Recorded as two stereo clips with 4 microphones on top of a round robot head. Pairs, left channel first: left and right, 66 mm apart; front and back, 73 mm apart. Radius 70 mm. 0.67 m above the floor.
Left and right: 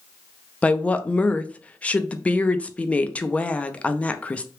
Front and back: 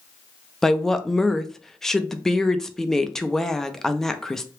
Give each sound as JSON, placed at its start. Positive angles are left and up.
{"t": 0.6, "sound": "a woman speaking", "azimuth_deg": 75, "distance_m": 0.5}